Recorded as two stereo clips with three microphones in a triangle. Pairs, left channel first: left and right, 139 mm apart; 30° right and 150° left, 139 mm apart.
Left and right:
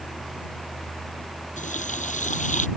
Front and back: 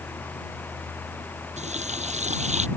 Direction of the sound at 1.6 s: 115° left.